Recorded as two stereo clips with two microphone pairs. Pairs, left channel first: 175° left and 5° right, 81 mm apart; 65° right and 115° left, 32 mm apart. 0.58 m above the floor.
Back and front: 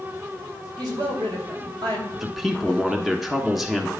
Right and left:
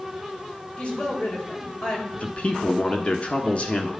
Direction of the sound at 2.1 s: 90° right.